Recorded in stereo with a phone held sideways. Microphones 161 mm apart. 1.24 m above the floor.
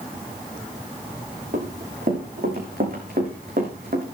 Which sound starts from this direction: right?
Running footsteps, at 1.5 s.